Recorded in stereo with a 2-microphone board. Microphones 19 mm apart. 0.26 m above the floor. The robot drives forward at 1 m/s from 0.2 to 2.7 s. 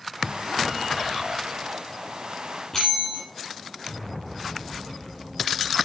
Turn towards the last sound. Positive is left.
turn(degrees=20)  # may be behind; listen again after turning